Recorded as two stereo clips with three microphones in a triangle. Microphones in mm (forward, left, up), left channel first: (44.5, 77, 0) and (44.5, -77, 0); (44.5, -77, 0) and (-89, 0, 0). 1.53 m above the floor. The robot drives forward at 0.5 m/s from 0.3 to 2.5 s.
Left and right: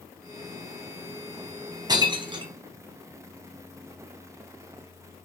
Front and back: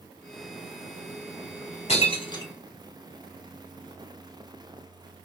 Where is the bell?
No bell in this recording.